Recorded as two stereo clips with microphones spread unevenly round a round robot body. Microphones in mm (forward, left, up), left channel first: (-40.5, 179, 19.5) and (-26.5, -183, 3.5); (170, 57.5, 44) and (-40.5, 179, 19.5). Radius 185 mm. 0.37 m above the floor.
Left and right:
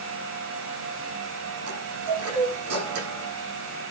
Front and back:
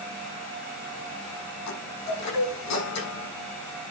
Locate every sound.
1.7 s a chime: 35° right, 6.5 m